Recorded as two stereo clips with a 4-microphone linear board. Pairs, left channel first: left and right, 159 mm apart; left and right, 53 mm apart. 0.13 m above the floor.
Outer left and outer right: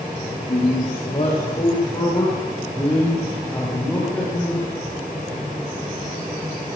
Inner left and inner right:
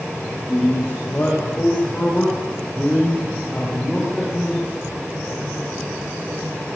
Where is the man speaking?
40° left (ahead or behind), 7.5 m; by 4.7 s 5° left (ahead or behind), 9.5 m.